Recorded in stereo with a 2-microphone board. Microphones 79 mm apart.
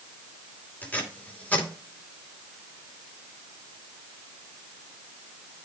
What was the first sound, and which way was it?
Tape being pulled, 20° left (ahead or behind).